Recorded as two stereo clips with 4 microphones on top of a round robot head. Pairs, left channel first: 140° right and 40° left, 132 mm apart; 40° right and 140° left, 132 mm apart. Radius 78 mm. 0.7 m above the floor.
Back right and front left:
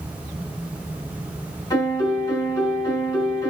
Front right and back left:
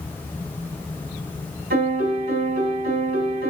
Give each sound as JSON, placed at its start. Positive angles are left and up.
{"t": 1.7, "sound": "a piano", "azimuth_deg": 155, "distance_m": 5.5}